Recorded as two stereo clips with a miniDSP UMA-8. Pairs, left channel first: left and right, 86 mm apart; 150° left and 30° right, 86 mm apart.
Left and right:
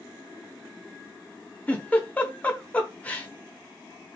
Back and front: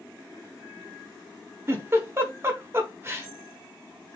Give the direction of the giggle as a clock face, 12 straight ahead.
11 o'clock.